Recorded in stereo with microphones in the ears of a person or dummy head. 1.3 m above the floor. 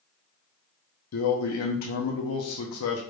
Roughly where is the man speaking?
Left.